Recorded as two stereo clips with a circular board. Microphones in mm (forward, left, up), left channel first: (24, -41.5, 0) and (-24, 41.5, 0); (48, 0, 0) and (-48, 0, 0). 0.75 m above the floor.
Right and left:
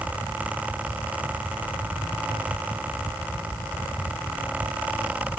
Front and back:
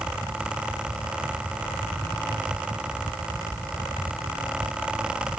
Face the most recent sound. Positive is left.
No sound to turn to.